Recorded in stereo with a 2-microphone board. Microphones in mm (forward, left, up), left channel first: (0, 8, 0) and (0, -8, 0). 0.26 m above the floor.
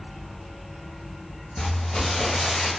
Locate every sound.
1.6 s crumpling: 70° left (ahead or behind), 1.1 m